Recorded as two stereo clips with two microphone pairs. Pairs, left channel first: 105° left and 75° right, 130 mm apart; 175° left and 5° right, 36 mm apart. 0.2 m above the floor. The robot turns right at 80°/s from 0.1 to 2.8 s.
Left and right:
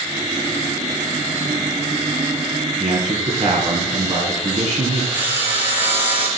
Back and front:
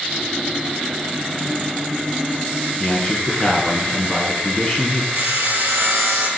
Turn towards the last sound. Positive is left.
turn(degrees=0)